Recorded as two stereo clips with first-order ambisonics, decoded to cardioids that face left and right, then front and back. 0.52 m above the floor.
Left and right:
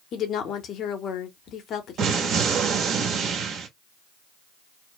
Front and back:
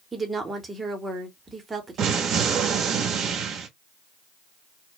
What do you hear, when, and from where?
0.1 s a woman speaking: 110° left, 0.8 m
2.0 s an explosion: 135° right, 0.9 m